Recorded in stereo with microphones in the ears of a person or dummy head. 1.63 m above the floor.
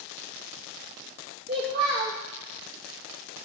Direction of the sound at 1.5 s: 30° right (ahead or behind).